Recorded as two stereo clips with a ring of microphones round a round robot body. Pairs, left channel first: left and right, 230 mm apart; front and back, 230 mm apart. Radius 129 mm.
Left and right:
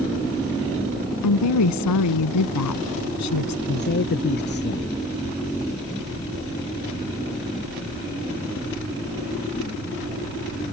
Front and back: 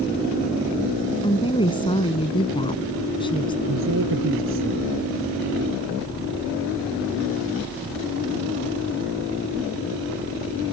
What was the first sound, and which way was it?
A woman speaking, 75° left.